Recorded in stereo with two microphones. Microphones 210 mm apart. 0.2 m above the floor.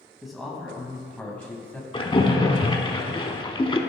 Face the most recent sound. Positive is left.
turn(degrees=25)  # may be behind; listen again after turning